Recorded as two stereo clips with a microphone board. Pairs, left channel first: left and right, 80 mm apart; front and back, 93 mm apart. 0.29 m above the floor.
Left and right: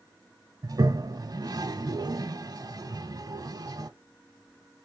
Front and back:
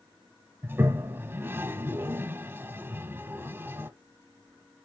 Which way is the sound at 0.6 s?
115° right.